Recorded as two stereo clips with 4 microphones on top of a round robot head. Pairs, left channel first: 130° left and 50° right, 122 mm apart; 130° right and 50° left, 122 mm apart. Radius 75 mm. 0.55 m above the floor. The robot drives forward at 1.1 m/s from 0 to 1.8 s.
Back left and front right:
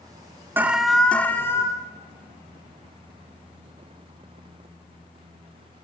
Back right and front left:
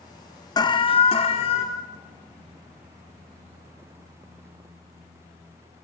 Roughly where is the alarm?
Right.